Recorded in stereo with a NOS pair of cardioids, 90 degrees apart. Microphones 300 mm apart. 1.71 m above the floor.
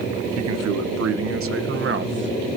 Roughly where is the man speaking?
Right.